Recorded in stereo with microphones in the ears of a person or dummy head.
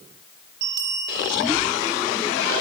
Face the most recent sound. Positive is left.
turn(degrees=-60)  # may be behind; listen again after turning